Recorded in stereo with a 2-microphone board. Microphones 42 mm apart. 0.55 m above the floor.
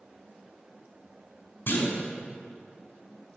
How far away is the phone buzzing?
No phone buzzing in this recording.